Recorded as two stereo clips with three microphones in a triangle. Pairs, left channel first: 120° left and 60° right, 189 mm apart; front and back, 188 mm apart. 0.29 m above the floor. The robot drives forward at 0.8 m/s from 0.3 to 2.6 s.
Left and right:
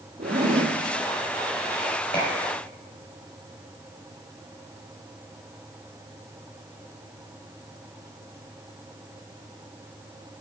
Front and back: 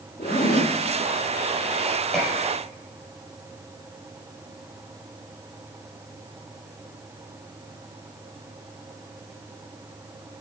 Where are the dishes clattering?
85° left, 4.5 m; by 2.3 s 90° left, 4.5 m.